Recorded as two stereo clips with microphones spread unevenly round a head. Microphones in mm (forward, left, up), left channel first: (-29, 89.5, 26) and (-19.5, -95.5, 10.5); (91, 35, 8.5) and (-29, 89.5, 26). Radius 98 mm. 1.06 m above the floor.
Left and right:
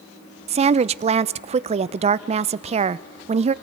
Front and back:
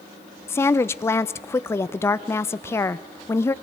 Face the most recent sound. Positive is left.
turn(degrees=-75)